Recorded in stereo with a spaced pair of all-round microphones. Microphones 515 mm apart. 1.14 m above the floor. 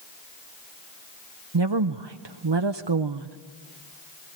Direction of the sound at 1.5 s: 55° right (ahead or behind).